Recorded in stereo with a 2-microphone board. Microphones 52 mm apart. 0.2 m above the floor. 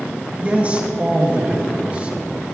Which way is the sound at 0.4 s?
30° right (ahead or behind).